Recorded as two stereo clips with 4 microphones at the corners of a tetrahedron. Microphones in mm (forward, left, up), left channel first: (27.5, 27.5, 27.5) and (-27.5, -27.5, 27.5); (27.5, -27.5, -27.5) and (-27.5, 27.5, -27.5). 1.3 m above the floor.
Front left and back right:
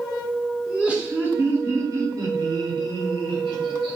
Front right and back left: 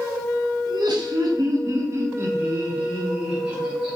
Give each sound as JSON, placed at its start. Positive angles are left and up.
{"t": 0.7, "sound": "laughter", "azimuth_deg": 145, "distance_m": 1.2}